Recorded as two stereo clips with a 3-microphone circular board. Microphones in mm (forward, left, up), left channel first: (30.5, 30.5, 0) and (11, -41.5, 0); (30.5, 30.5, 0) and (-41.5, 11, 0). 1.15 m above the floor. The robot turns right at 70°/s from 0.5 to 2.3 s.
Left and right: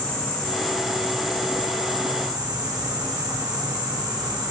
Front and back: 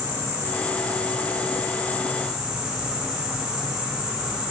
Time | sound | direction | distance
0.0 | an insect | 150° left | 1.9 m